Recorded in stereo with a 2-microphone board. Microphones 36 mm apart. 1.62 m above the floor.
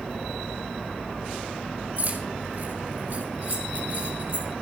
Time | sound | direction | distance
2.0 | keys jangling | 65° right (ahead or behind) | 6.5 m